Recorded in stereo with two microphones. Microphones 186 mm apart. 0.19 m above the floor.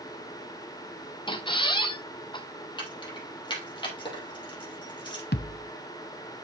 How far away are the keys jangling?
About 3 m.